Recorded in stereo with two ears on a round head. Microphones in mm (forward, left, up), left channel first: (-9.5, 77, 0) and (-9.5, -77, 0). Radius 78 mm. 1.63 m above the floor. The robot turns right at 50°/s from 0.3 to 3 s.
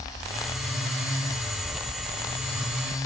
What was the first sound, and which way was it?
Keys jangling, 5° right.